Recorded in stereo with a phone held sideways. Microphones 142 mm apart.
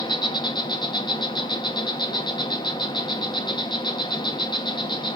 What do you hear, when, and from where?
0.0 s an insect: 30° left (ahead or behind), 1.4 m